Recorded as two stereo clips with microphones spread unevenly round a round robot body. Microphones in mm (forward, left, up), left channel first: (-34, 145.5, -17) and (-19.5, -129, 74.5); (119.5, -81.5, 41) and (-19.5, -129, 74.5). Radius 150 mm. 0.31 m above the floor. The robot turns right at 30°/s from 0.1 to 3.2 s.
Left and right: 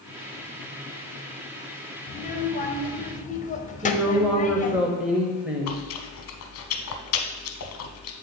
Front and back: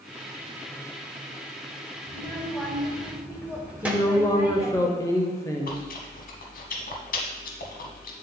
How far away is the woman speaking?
About 1.0 m.